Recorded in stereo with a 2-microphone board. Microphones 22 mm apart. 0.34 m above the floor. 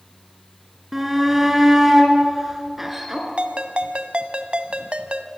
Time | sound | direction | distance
0.9 | a shout | 10° right (ahead or behind) | 5.5 m
3.4 | a ringtone | 55° right (ahead or behind) | 1.5 m